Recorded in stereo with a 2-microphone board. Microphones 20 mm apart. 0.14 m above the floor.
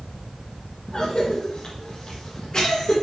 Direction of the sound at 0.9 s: 40° left (ahead or behind).